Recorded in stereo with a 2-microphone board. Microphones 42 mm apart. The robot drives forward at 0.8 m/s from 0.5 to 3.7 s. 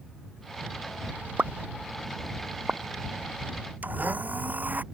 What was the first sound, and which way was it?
A pop, 40° right (ahead or behind).